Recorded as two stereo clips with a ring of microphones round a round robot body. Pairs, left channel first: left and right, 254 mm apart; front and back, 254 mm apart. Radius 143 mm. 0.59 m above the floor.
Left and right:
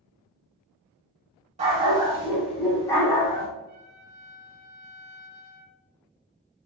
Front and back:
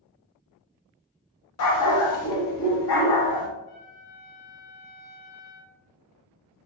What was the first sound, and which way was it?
A dog barking, 20° right.